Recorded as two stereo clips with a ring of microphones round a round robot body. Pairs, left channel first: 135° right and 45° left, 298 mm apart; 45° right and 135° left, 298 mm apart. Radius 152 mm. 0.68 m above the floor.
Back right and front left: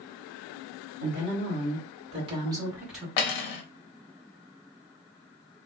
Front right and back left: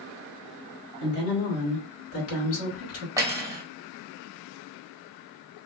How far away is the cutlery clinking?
About 0.6 m.